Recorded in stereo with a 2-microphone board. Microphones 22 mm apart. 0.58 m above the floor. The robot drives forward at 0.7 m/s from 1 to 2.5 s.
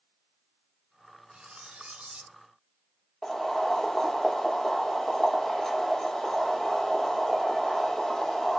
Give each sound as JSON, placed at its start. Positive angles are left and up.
{"t": 1.3, "sound": "cutlery clinking", "side_deg": -60, "distance_m": 1.2}
{"t": 3.2, "sound": "boiling", "side_deg": 15, "distance_m": 1.5}